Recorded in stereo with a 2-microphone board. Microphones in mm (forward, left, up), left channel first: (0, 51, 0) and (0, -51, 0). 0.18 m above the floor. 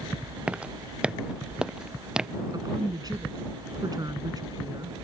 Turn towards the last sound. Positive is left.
turn(degrees=-40)  # may be behind; listen again after turning